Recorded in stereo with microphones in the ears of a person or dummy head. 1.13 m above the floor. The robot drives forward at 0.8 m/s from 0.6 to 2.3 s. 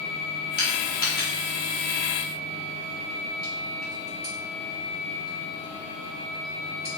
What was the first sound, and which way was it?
Crushing, 25° left (ahead or behind).